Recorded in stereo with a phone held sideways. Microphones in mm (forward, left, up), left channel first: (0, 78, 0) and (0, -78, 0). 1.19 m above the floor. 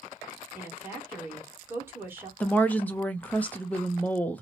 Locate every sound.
0.6 s a woman speaking: 15° right (ahead or behind), 1.5 m
2.4 s a woman speaking: 10° left (ahead or behind), 0.6 m